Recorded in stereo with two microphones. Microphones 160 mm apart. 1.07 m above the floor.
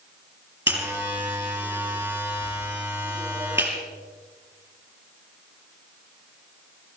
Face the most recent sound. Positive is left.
turn(degrees=-10)  # may be behind; listen again after turning